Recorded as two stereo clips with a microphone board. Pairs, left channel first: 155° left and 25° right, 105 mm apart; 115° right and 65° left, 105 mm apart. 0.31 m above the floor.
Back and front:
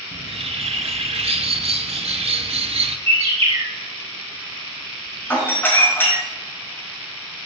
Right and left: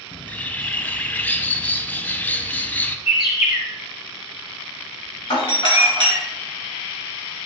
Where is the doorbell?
135° right, 3.5 m.